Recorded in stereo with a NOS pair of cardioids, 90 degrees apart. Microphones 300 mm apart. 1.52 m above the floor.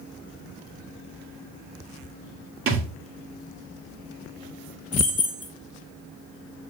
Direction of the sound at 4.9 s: 20° left.